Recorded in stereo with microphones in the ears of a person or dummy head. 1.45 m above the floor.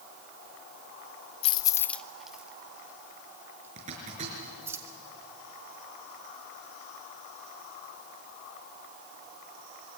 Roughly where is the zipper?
Right.